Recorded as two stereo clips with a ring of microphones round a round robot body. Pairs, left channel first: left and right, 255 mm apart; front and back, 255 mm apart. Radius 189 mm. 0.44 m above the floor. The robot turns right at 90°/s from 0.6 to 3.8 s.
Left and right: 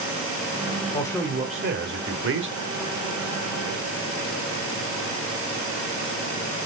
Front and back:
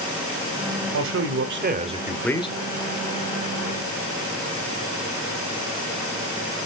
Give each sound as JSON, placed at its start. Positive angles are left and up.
{"t": 0.9, "sound": "a man speaking", "azimuth_deg": 155, "distance_m": 1.7}